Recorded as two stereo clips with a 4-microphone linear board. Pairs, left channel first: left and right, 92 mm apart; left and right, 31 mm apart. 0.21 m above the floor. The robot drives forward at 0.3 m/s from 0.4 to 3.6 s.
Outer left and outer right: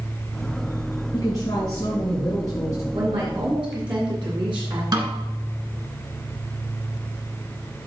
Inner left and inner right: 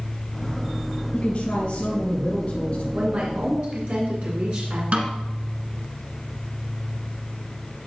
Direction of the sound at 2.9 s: 60° right (ahead or behind).